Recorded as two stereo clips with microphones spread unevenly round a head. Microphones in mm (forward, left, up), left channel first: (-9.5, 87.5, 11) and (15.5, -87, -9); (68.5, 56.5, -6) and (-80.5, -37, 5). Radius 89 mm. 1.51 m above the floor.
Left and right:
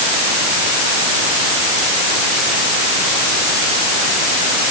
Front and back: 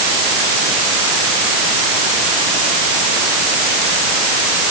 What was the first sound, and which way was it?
Only background noise.